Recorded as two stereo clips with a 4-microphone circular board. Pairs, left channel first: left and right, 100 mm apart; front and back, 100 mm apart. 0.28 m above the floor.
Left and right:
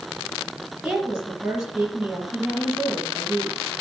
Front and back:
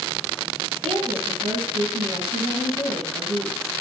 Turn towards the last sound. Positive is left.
turn(degrees=-175)